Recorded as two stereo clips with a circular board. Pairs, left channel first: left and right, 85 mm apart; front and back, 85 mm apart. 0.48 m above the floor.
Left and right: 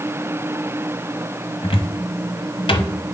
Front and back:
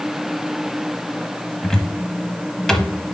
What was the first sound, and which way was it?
A cupboard door, 85° left.